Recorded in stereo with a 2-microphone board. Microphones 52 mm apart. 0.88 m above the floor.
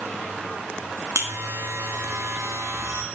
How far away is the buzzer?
About 1.1 m.